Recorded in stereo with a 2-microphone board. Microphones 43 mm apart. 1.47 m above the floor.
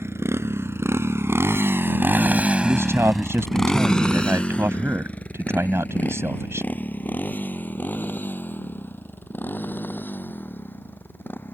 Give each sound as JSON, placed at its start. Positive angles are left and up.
{"t": 0.0, "sound": "a motorcycle", "side_deg": -85}
{"t": 2.6, "sound": "a man speaking", "side_deg": -80}